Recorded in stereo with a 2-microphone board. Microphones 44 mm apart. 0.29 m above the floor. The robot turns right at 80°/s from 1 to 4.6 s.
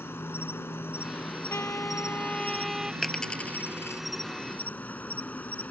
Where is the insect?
110° left; by 5.7 s 40° left.